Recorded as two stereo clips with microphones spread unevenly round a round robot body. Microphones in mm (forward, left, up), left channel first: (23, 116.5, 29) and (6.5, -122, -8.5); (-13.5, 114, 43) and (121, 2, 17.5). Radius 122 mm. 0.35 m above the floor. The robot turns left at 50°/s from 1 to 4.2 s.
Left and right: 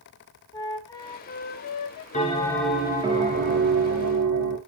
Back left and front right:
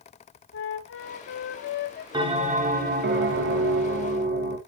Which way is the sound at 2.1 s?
25° left.